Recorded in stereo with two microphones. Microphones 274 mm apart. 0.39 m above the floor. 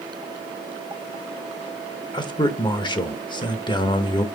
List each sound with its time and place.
2.1 s a man speaking: 15° left (ahead or behind), 0.8 m